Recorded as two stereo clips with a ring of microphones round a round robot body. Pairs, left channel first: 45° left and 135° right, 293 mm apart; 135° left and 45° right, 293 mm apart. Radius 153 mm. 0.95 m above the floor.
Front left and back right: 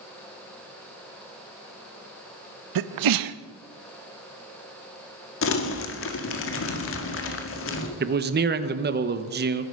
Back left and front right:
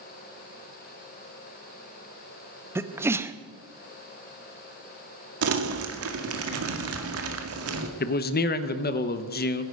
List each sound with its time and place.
2.8 s a sneeze: 125° right, 0.9 m
5.4 s crumpling: straight ahead, 1.8 m
8.0 s a man speaking: straight behind, 1.2 m